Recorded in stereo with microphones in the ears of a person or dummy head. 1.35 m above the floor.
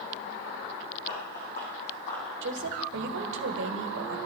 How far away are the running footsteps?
About 4.5 m.